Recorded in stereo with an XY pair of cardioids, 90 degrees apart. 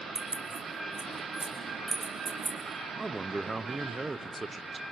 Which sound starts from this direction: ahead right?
Keys jangling, at 0.1 s.